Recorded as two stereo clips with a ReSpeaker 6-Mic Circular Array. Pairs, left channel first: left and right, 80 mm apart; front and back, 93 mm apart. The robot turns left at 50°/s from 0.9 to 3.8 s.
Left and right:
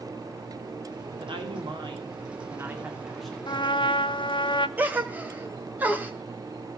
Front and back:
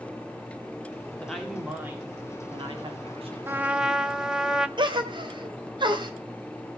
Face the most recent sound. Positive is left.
turn(degrees=-155)